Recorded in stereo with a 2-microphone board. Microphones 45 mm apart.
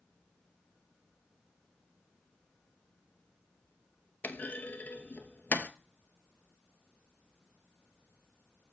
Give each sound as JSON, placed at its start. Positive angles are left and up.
{"t": 4.2, "sound": "a clunk", "side_deg": 45, "distance_m": 0.5}